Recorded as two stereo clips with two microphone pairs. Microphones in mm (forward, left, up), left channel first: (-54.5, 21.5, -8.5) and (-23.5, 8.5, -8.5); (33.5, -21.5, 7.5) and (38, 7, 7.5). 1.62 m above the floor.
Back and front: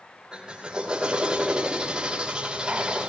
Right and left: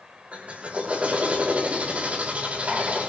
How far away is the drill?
About 5 m.